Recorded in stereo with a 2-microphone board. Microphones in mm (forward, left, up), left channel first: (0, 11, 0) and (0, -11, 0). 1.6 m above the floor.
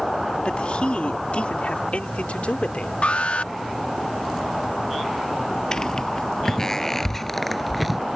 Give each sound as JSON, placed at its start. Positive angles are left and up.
{"t": 0.5, "sound": "a man speaking", "side_deg": 60}
{"t": 3.0, "sound": "an alarm", "side_deg": 80}
{"t": 5.7, "sound": "footsteps", "side_deg": 40}